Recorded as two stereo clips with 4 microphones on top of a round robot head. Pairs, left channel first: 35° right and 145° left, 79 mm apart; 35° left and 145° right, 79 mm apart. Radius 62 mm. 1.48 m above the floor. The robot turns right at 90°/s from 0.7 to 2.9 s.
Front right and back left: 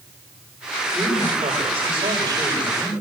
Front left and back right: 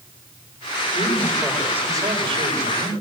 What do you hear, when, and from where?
0.9 s a man speaking: 70° left, 8.5 m; by 2.9 s 110° right, 8.5 m